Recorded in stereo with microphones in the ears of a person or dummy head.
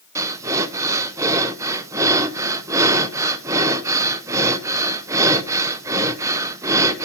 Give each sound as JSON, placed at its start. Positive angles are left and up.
{"t": 0.1, "sound": "breathing", "side_deg": -15, "distance_m": 0.6}